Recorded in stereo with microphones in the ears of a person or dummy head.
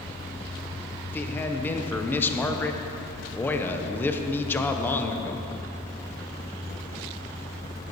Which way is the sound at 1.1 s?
10° left (ahead or behind).